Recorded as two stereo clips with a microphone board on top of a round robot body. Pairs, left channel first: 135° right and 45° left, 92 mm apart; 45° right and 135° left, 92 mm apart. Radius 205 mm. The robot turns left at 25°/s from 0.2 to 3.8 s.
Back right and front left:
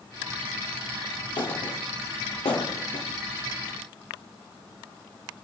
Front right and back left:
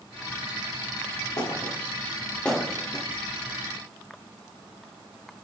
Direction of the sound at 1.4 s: 95° right.